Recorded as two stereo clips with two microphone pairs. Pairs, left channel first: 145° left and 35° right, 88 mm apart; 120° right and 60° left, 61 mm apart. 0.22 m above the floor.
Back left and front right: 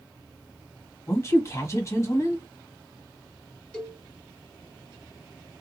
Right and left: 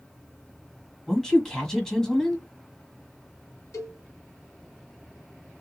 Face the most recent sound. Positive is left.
turn(degrees=-140)